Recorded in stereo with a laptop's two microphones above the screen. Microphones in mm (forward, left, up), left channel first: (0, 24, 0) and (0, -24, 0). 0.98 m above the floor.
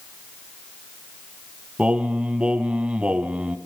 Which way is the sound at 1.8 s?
25° right (ahead or behind).